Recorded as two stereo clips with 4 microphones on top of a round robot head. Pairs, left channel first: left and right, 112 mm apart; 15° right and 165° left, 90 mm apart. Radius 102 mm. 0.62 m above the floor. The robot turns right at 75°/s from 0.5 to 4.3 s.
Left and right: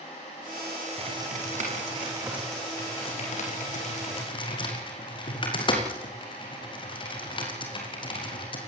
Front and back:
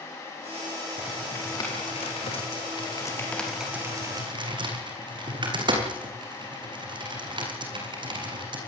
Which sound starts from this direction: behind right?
Typing on a keyboard, at 1.0 s.